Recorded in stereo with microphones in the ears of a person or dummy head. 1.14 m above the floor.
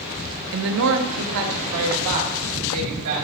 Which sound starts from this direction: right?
A woman speaking, at 0.5 s.